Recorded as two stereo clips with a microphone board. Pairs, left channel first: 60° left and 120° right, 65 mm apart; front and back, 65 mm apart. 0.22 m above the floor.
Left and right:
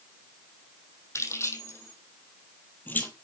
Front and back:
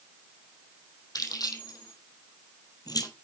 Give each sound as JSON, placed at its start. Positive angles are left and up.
{"t": 1.1, "sound": "keys jangling", "azimuth_deg": 15, "distance_m": 6.0}